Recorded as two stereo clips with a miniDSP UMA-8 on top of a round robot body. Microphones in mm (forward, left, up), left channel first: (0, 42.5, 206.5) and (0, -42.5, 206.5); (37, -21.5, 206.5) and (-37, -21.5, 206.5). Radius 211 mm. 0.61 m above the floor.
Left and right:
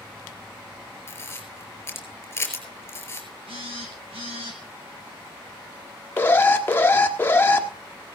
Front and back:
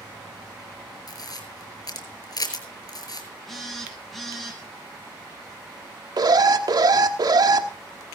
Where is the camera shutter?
30° left, 4.5 m.